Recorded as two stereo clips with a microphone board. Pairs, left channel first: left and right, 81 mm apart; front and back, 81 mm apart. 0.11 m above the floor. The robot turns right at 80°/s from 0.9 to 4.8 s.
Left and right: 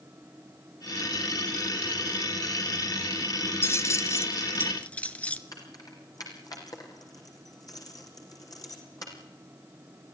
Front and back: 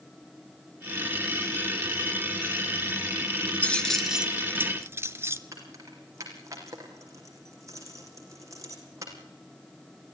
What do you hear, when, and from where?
3.6 s keys jangling: 60° left, 1.0 m; by 5.4 s 155° left, 1.0 m
5.5 s keys jangling: 130° left, 4.5 m